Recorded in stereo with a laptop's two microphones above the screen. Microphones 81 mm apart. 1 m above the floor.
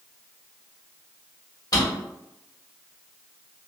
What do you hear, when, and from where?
1.7 s a drawer: 50° left (ahead or behind), 1.4 m